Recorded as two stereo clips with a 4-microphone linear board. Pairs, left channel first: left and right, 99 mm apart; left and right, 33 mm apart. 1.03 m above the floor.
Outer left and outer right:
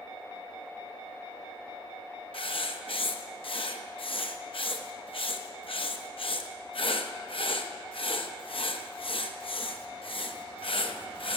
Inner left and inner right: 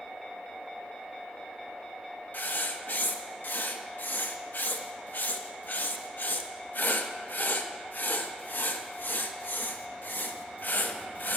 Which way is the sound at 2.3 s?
70° left (ahead or behind).